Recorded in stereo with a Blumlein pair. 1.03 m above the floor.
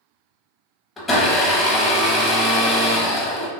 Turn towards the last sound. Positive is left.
turn(degrees=15)